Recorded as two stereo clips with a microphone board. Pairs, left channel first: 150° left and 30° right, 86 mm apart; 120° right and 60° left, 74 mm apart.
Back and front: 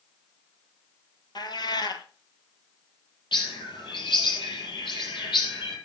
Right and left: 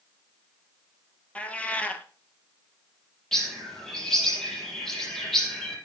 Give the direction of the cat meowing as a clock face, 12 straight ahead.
6 o'clock.